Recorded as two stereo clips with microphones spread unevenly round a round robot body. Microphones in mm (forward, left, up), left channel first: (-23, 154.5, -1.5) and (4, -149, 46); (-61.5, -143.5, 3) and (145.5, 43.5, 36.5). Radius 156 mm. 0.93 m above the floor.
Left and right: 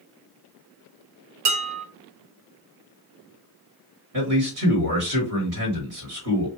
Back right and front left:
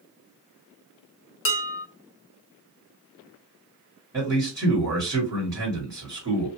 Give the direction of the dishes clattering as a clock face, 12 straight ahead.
3 o'clock.